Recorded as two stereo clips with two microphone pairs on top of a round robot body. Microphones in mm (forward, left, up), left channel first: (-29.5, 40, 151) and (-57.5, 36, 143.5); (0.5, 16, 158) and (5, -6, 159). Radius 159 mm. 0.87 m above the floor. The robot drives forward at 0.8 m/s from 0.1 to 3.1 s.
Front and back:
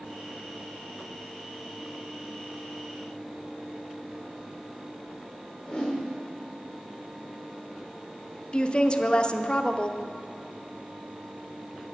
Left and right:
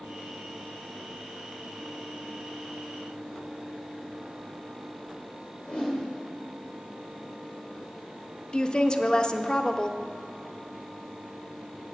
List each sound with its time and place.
5.6 s a whoosh: 75° left, 1.3 m
8.5 s a woman speaking: 75° left, 0.7 m